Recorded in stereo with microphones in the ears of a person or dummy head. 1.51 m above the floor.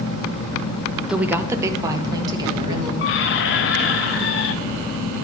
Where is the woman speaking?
5° right (ahead or behind), 0.6 m; by 2.9 s 30° right (ahead or behind), 2 m.